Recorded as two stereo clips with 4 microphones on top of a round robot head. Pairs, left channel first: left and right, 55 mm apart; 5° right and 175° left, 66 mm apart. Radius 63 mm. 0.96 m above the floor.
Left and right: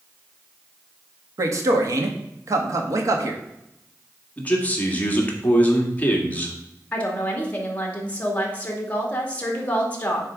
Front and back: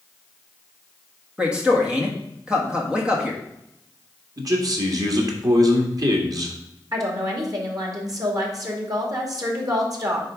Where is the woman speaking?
150° left, 2.5 m.